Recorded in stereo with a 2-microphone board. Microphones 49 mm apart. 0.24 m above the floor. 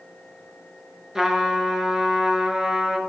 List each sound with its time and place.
1.1 s a trumpet: 10° right (ahead or behind), 2 m